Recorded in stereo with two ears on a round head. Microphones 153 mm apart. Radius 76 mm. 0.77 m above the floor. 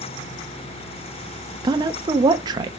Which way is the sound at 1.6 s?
25° right (ahead or behind).